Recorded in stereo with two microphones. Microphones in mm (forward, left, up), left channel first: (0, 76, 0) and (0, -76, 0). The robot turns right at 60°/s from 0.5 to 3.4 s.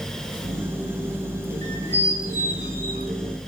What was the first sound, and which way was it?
A squeak, 25° left.